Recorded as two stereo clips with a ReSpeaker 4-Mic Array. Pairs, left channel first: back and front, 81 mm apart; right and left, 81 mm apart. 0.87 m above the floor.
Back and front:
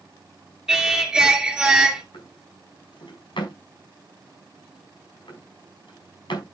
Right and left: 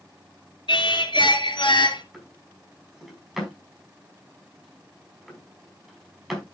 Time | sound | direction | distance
0.7 | singing | 80° right | 2.5 m
2.1 | a drawer | straight behind | 4.5 m